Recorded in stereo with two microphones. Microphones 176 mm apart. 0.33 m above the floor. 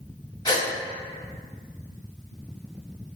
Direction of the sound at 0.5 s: 20° left (ahead or behind).